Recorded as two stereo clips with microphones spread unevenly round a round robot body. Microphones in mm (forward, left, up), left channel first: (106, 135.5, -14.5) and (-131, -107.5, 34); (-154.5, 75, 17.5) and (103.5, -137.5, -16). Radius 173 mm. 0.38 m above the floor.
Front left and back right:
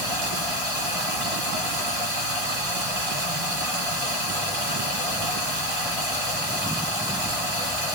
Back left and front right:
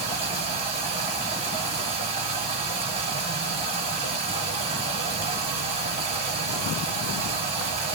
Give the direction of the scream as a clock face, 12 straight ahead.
I don't hear a scream.